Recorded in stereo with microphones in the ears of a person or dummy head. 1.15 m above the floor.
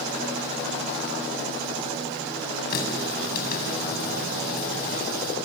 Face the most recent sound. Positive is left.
turn(degrees=50)  # may be behind; listen again after turning